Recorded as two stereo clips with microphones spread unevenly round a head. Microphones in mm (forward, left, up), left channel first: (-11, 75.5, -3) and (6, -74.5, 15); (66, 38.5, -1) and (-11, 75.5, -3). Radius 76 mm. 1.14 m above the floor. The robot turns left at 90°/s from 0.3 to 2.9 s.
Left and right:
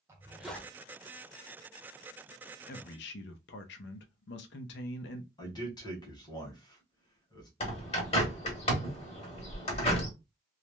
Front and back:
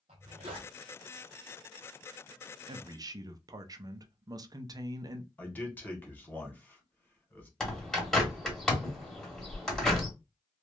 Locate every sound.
0.1 s a zipper: 160° right, 0.5 m; by 0.7 s 165° left, 0.5 m
2.7 s a man speaking: 130° left, 0.5 m; by 5.3 s 110° left, 0.5 m
5.4 s a man speaking: 40° left, 1.1 m
7.6 s a bird: 55° left, 1.1 m